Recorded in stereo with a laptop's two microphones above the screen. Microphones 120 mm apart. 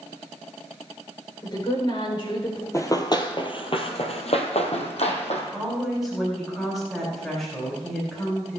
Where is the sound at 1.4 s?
40° left (ahead or behind), 3.5 m; by 2.6 s 55° left (ahead or behind), 3.5 m.